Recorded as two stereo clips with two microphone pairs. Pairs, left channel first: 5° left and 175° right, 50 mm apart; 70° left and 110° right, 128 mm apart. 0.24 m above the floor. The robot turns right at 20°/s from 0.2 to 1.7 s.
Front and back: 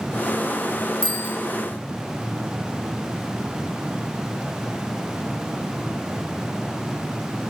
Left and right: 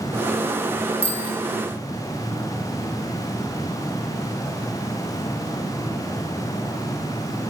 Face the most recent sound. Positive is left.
turn(degrees=-55)